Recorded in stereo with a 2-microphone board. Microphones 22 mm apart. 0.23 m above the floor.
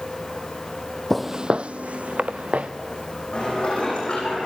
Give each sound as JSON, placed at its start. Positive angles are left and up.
{"t": 1.1, "sound": "footsteps", "side_deg": 5, "distance_m": 0.6}
{"t": 3.3, "sound": "dishes clattering", "side_deg": 50, "distance_m": 9.0}